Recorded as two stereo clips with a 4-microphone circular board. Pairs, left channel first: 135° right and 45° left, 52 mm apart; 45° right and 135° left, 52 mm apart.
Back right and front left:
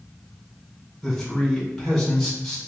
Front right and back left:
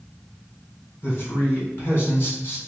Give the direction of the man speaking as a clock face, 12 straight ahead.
2 o'clock.